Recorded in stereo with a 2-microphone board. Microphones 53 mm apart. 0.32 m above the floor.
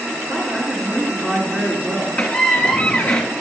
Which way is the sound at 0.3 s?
15° right (ahead or behind).